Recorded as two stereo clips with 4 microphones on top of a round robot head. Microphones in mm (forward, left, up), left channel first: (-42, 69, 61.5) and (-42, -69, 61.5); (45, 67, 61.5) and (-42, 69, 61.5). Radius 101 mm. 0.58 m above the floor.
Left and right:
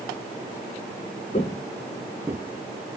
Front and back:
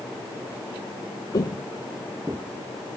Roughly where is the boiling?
I don't hear boiling.